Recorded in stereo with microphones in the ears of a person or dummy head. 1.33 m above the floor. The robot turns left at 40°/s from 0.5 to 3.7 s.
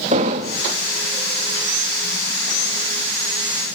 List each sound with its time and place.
0.1 s an explosion: 40° right (ahead or behind), 1.4 m; by 0.7 s 30° right (ahead or behind), 1.4 m